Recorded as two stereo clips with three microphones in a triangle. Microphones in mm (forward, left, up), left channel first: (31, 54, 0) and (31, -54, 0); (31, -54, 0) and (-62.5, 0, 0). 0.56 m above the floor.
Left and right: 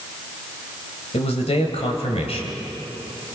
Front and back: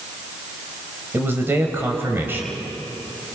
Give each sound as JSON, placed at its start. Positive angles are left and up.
{"t": 1.1, "sound": "a man speaking", "azimuth_deg": 80, "distance_m": 2.5}